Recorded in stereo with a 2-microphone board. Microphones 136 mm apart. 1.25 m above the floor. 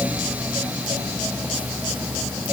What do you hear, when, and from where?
Only background noise.